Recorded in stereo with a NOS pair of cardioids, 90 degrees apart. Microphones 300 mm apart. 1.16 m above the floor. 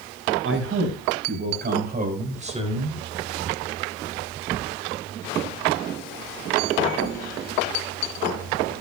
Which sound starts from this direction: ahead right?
A man speaking, at 0.4 s.